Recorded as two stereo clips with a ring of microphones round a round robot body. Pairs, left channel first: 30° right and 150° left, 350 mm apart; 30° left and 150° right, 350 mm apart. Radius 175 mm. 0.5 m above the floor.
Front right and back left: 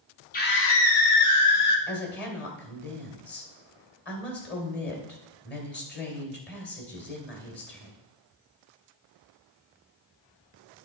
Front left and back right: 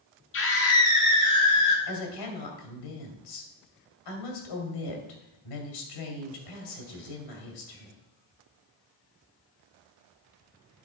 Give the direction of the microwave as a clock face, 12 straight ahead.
No microwave in this recording.